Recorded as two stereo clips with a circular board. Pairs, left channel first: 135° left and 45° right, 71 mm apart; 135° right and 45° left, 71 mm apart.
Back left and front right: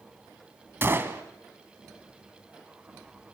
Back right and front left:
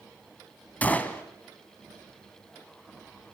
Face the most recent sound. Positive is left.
turn(degrees=-80)